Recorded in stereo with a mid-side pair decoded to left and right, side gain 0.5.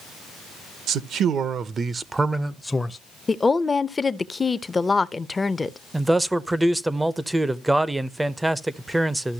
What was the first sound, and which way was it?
A man speaking, 70° right.